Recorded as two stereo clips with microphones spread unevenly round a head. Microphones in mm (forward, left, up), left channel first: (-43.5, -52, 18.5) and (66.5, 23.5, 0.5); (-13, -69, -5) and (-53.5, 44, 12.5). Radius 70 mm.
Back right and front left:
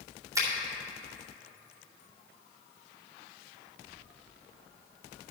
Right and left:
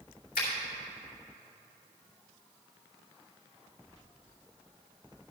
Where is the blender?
No blender in this recording.